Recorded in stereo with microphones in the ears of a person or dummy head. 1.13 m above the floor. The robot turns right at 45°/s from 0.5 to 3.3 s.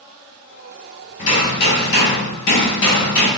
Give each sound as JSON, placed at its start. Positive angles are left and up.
{"t": 1.2, "sound": "hammering", "azimuth_deg": 40, "distance_m": 1.9}